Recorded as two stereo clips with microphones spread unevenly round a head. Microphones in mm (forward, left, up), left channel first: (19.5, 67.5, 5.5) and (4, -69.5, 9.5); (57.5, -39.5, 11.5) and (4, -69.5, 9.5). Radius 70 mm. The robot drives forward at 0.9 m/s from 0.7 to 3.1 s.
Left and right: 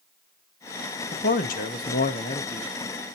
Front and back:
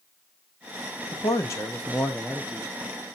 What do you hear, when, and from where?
1.1 s a man speaking: 65° left, 1.2 m; by 2.7 s 135° left, 1.5 m